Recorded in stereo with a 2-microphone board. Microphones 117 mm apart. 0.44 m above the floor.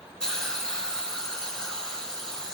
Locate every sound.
0.2 s a hiss: 5° left (ahead or behind), 4 m